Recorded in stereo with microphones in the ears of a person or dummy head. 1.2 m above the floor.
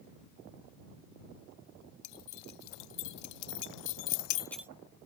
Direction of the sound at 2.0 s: 60° left (ahead or behind).